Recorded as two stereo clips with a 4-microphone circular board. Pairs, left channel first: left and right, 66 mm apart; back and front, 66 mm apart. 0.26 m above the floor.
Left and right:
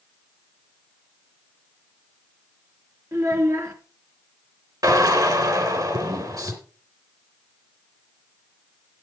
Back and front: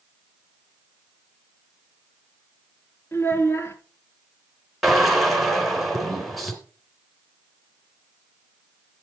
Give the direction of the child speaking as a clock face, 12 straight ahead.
4 o'clock.